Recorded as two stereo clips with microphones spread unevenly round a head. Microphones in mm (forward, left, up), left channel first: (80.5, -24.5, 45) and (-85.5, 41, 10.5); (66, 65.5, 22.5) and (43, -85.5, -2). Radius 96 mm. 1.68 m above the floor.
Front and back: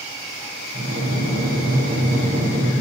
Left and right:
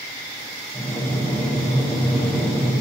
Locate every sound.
0.7 s breathing: 150° left, 0.9 m